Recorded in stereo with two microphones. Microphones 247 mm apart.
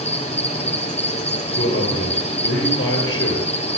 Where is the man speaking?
55° left (ahead or behind), 9 m.